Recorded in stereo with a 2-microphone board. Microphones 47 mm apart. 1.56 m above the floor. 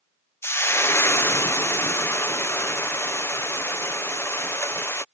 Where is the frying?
60° left (ahead or behind).